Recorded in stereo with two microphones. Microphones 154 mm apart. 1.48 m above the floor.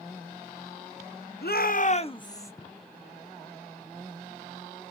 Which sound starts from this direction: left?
A shout, at 1.4 s.